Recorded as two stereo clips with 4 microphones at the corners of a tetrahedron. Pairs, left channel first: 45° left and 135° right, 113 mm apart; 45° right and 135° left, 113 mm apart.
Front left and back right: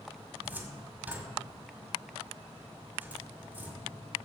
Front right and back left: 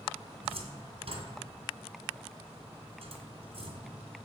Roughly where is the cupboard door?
Behind left.